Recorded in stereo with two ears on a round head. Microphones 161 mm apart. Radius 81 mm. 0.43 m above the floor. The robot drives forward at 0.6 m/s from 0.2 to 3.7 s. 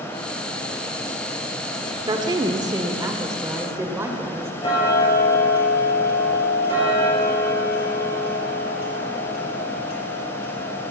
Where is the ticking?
30° left (ahead or behind), 5 m.